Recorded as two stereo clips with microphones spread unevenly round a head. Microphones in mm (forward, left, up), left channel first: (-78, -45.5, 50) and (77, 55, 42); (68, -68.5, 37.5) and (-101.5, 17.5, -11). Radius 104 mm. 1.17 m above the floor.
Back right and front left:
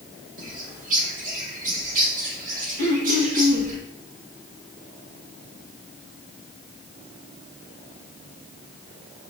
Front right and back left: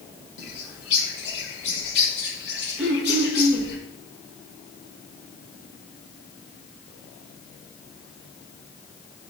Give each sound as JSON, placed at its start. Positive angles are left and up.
{"t": 0.4, "sound": "a bird", "azimuth_deg": -15, "distance_m": 1.6}
{"t": 2.8, "sound": "throat clearing", "azimuth_deg": 70, "distance_m": 1.8}